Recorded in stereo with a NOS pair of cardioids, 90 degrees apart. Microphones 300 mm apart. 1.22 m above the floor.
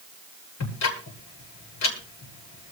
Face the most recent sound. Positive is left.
turn(degrees=60)